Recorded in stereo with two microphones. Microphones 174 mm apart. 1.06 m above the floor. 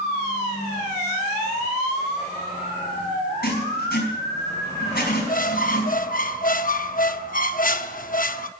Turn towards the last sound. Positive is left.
turn(degrees=55)  # may be behind; listen again after turning